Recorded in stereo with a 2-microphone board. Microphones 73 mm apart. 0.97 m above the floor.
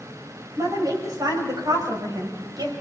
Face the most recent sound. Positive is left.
turn(degrees=-65)  # may be behind; listen again after turning